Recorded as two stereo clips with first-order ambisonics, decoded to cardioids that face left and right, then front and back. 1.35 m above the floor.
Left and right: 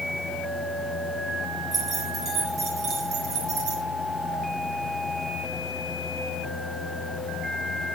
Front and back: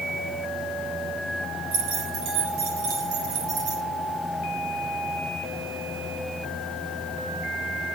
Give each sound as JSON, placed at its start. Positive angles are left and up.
{"t": 1.7, "sound": "keys jangling", "azimuth_deg": -160, "distance_m": 6.0}